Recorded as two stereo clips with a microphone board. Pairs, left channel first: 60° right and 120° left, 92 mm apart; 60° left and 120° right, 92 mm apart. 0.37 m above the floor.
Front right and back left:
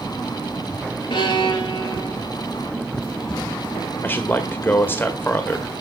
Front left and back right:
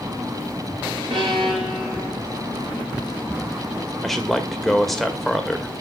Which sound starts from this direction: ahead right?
A man speaking, at 4.0 s.